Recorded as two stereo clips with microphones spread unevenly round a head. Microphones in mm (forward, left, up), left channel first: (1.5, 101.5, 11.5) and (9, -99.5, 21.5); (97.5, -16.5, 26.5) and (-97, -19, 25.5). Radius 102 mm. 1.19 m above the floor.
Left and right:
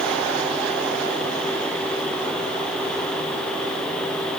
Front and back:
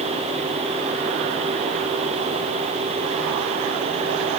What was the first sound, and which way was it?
Only background noise.